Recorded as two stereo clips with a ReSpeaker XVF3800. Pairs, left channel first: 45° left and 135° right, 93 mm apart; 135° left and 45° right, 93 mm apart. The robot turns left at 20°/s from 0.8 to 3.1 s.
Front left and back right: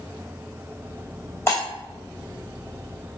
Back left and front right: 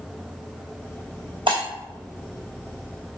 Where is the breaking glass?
20° right, 1.6 m.